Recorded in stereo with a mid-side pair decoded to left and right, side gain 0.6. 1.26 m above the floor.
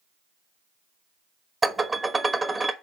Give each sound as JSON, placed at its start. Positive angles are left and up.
{"t": 1.6, "sound": "dishes clattering", "azimuth_deg": -20, "distance_m": 1.2}